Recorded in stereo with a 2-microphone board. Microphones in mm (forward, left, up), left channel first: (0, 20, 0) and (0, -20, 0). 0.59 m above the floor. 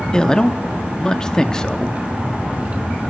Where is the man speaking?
15° left (ahead or behind), 0.6 m.